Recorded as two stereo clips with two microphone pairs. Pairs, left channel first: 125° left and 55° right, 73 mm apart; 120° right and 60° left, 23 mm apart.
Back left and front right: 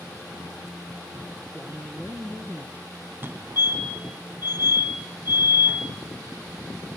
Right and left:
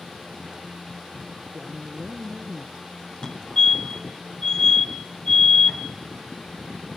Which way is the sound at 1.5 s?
10° left.